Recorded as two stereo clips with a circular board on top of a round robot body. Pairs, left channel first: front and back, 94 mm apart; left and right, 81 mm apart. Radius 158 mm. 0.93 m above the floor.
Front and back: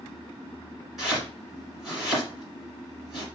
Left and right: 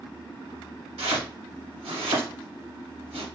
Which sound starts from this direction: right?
Chopping, at 1.0 s.